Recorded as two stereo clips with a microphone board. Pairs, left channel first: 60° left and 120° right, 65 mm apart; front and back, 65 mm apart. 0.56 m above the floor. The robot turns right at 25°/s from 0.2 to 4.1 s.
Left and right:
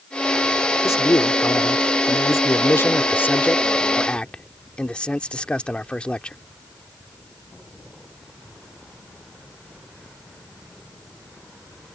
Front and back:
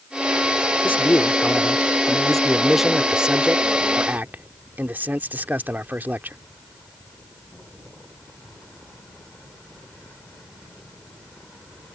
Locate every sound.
0.8 s a man speaking: 45° left; by 6.4 s 130° left